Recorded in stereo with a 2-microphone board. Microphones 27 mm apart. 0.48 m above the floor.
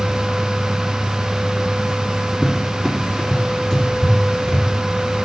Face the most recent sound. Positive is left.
turn(degrees=20)  # may be behind; listen again after turning